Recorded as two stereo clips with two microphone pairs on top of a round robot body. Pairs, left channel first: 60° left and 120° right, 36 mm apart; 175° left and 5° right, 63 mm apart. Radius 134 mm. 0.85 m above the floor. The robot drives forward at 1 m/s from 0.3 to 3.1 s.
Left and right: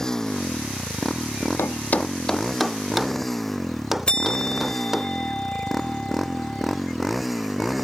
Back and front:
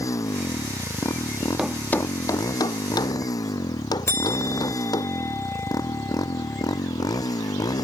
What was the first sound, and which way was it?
A motorcycle, 135° left.